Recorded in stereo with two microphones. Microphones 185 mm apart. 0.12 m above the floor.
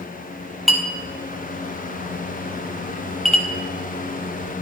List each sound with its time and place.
0.7 s a clink: centre (ahead or behind), 1.8 m